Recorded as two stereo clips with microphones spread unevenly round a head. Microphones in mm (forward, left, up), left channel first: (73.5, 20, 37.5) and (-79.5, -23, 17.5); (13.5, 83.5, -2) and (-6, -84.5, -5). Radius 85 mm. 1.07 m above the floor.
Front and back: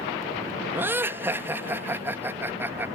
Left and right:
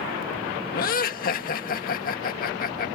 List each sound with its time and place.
0.7 s laughter: 120° left